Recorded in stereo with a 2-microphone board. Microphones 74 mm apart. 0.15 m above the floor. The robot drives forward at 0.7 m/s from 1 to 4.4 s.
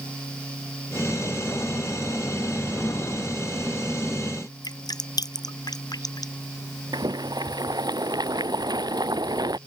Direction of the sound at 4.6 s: 70° left (ahead or behind).